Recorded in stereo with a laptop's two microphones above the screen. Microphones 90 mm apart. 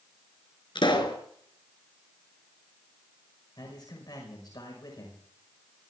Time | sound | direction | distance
0.8 | a pop | 60° left (ahead or behind) | 3 m
3.6 | a man speaking | 50° left (ahead or behind) | 5 m